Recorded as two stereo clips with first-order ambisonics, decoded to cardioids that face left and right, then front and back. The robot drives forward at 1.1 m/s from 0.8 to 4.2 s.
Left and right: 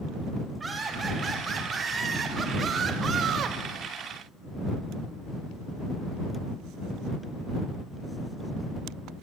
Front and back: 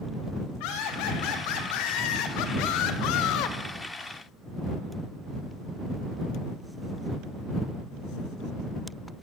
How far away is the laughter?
About 5 m.